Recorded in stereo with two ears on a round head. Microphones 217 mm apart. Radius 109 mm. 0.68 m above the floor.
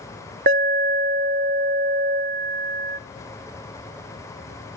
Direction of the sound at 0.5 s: 45° right (ahead or behind).